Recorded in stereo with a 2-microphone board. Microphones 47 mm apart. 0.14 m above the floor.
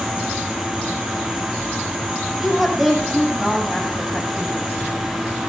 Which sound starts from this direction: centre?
A woman speaking, at 2.4 s.